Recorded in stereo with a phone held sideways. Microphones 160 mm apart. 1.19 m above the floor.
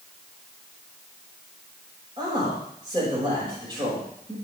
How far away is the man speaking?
About 5.5 m.